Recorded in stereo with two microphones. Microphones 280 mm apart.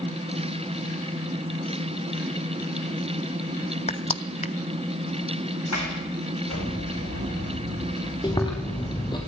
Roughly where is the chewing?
Centre.